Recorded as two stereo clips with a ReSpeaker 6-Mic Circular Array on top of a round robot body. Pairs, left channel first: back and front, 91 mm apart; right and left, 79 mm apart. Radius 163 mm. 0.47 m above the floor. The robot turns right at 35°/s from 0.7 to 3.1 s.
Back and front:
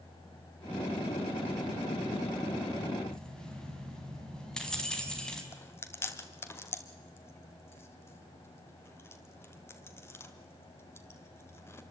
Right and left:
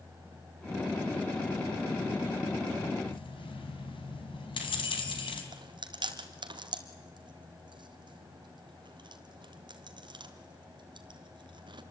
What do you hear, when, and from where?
3.1 s keys jangling: 100° right, 3.5 m
5.5 s chewing: 115° left, 1.8 m